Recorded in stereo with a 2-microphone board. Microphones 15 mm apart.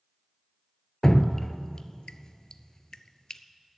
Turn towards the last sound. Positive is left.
turn(degrees=40)  # may be behind; listen again after turning